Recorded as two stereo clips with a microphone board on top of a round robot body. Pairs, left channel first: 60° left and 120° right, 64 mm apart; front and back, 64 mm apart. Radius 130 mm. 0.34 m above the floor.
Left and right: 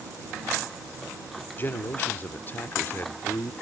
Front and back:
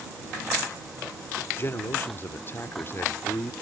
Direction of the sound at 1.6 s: 25° left.